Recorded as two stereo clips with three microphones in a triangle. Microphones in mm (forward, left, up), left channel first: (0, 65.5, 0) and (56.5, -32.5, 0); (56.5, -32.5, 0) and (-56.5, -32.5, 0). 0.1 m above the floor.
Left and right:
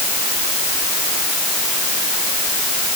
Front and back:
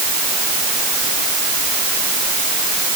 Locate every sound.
Only background noise.